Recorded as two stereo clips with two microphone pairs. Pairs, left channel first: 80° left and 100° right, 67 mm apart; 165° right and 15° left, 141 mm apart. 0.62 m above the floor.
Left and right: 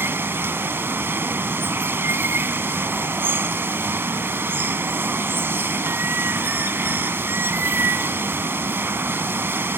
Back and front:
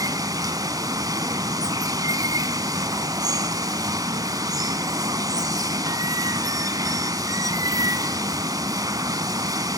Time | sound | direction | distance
0.0 | running water | 45° right | 0.8 m